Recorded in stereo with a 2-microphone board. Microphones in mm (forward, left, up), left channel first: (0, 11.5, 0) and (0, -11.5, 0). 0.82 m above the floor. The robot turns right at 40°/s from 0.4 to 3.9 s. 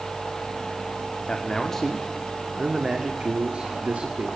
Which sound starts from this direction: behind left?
A man speaking, at 1.3 s.